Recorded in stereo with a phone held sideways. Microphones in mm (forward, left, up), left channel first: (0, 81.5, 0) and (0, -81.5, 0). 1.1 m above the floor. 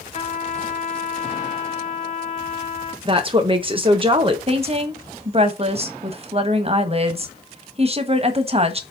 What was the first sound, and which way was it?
A trumpet, 50° left (ahead or behind).